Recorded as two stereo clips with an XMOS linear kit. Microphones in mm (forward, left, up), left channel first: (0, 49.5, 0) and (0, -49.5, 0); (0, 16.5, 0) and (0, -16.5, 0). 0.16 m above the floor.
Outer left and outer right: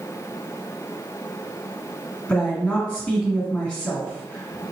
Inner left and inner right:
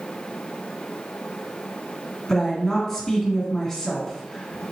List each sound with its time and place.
2.3 s a woman speaking: 15° left (ahead or behind), 1.8 m